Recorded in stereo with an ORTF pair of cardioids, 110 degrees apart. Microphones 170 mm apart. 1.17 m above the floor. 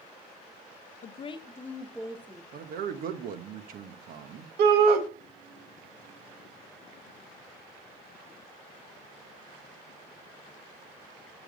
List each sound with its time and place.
1.0 s a woman speaking: 50° left, 0.9 m; by 2.4 s 15° right, 1.5 m
2.5 s a man speaking: 60° right, 1.1 m
4.6 s a shout: 70° right, 1.5 m